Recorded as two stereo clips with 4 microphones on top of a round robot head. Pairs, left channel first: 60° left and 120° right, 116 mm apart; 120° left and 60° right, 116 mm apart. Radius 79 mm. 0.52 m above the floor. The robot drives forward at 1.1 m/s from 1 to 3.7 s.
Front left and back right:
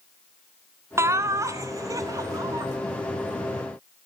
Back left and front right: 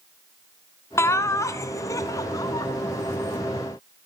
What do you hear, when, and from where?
1.0 s laughter: straight behind, 1.8 m